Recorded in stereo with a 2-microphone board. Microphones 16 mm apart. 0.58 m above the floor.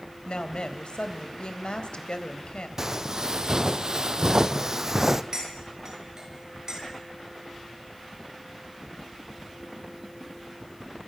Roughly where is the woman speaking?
Left.